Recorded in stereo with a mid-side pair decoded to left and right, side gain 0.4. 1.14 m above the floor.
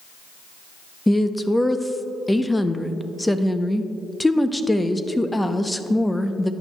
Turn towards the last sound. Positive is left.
turn(degrees=10)